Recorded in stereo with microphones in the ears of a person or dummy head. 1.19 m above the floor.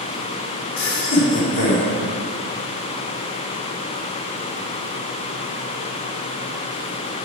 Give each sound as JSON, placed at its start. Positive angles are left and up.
{"t": 0.8, "sound": "laughter", "side_deg": 50, "distance_m": 3.0}